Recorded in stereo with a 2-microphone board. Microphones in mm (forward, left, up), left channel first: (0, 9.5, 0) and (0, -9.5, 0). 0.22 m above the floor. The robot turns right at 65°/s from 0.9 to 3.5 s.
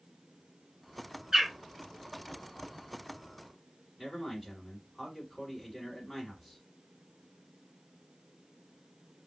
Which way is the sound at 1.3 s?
30° right (ahead or behind).